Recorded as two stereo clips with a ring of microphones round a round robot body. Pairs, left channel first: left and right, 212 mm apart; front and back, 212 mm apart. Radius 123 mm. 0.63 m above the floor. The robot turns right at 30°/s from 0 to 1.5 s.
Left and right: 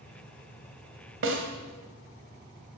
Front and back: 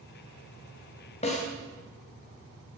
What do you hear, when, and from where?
1.2 s a snare drum: 65° right, 2.5 m; by 1.5 s 60° right, 2.5 m